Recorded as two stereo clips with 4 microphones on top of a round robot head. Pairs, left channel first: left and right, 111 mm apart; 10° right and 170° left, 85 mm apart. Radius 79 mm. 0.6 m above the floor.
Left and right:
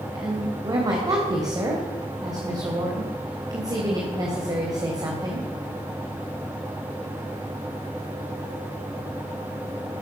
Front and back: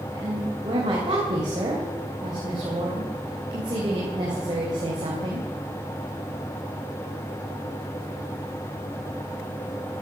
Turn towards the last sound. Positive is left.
turn(degrees=-145)